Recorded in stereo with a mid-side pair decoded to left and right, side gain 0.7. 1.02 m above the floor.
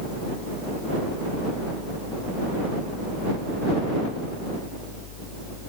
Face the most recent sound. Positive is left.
turn(degrees=60)